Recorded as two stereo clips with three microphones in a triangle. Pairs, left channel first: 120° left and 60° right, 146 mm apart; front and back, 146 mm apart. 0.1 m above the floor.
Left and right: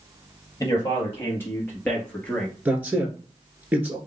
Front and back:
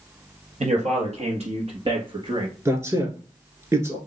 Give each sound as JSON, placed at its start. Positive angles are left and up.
{"t": 0.6, "sound": "a man speaking", "azimuth_deg": -175, "distance_m": 2.5}
{"t": 2.6, "sound": "a man speaking", "azimuth_deg": -125, "distance_m": 1.5}